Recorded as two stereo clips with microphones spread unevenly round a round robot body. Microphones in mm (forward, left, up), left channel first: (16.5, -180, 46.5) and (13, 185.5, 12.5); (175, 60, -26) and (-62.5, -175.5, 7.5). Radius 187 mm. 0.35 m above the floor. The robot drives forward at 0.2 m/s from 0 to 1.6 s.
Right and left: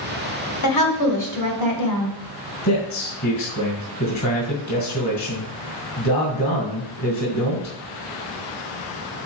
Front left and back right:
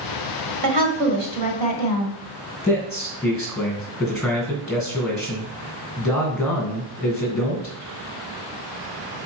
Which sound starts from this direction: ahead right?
A man speaking, at 2.6 s.